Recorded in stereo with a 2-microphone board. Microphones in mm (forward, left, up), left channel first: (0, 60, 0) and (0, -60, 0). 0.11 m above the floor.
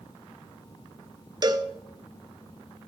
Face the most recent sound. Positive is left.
turn(degrees=-35)  # may be behind; listen again after turning